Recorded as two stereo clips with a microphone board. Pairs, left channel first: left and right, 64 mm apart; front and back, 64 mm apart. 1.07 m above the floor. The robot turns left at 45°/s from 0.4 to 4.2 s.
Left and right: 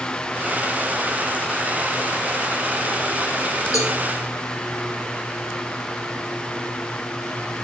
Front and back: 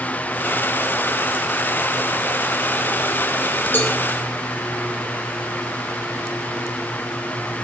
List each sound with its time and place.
3.7 s a cowbell: 55° left, 4 m; by 4.0 s 50° left, 4 m